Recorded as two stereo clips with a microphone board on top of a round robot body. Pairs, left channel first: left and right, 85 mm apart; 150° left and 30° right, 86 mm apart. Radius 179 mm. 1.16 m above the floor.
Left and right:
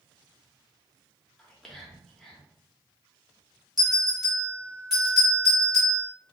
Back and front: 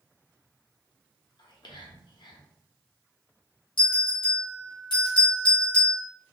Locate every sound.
1.4 s whispering: 175° left, 1.1 m
3.8 s a bell: straight behind, 0.7 m